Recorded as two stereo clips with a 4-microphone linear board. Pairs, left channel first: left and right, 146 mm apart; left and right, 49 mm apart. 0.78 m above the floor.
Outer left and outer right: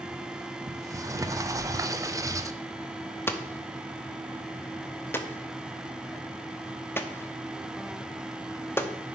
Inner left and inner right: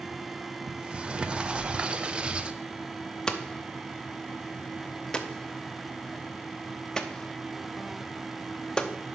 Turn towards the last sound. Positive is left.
turn(degrees=15)  # may be behind; listen again after turning